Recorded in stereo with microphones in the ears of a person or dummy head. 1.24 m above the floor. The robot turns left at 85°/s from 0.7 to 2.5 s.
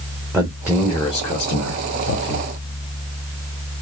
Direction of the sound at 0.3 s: 10° right (ahead or behind).